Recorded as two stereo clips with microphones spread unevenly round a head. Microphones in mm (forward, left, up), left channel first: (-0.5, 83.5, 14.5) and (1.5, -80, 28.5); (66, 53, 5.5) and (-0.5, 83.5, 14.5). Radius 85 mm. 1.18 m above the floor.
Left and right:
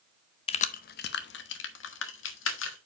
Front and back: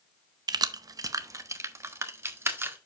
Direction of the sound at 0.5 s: 150° left.